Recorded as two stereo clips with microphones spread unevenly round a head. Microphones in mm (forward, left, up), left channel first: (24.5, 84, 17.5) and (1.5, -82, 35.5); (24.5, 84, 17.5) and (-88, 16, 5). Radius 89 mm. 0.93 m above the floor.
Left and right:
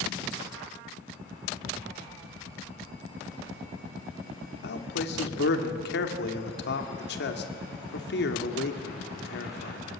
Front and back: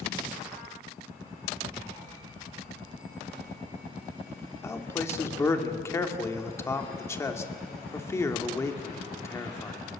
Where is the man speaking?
100° left, 2.5 m.